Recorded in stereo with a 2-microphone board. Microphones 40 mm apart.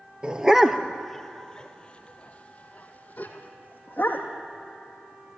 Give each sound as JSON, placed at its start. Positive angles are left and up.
{"t": 0.2, "sound": "a dog barking", "side_deg": -20, "distance_m": 0.9}